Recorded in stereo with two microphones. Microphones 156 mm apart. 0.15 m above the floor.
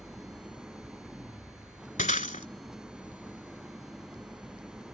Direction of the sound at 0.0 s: 5° right (ahead or behind).